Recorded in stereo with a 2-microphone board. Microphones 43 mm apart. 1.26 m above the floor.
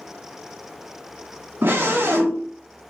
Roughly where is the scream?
Right.